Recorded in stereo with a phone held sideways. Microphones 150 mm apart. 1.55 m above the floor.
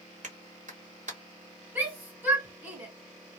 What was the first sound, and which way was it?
A clap, 60° right (ahead or behind).